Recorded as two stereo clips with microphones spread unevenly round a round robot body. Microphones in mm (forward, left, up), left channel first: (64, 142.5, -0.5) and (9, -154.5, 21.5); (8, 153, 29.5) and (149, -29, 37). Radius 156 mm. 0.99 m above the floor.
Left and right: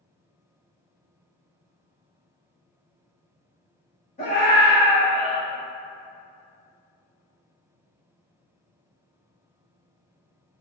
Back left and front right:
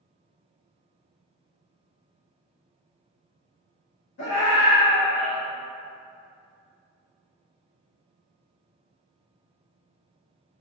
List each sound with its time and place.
4.2 s a scream: 145° left, 1.6 m; by 5.4 s 105° left, 1.0 m